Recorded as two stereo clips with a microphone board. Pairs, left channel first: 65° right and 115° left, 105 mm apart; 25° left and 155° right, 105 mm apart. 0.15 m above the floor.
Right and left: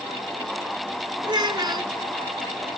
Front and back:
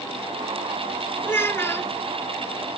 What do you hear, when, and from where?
1.2 s a child speaking: 85° left, 0.9 m